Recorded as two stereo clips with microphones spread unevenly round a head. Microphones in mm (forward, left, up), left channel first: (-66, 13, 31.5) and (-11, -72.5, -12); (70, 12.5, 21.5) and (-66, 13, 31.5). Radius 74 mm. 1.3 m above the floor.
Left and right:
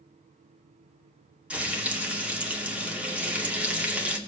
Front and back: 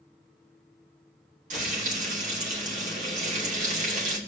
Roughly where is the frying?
Behind right.